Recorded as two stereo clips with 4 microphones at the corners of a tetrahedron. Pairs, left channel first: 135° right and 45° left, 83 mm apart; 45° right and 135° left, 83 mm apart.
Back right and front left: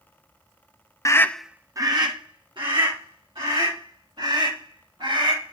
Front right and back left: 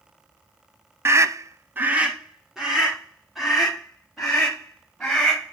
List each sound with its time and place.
1.1 s a scream: 175° right, 0.9 m; by 5.5 s 40° left, 6.5 m